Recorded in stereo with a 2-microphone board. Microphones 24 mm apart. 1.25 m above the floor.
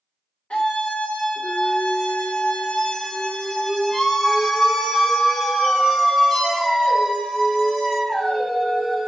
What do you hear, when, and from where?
0.5 s a scream: 70° left (ahead or behind), 1.5 m; by 9.1 s 5° right (ahead or behind), 4.5 m